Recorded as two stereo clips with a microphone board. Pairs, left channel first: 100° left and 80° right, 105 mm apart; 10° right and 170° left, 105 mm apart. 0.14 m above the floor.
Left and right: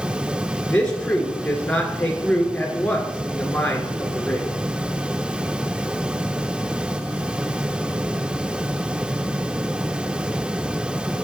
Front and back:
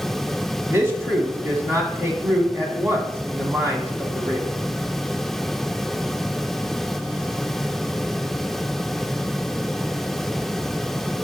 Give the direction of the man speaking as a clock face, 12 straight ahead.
7 o'clock.